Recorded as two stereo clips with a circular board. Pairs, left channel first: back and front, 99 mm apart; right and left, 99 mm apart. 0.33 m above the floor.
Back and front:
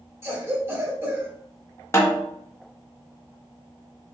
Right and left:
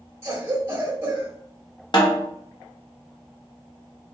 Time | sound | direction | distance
0.2 | a cough | 45° left | 1.1 m
1.9 | a snare drum | 120° right | 0.8 m